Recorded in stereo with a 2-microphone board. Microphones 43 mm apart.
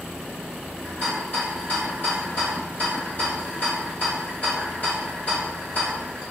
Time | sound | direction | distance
0.8 | a rattle | 45° left (ahead or behind) | 1.8 m